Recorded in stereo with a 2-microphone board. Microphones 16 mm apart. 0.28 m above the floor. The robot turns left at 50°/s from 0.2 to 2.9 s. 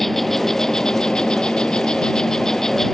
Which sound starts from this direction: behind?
An insect, at 0.0 s.